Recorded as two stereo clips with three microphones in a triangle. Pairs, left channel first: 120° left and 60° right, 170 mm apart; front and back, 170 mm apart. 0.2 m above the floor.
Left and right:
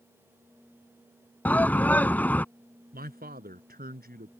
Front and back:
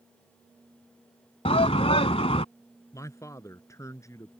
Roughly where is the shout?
Ahead left.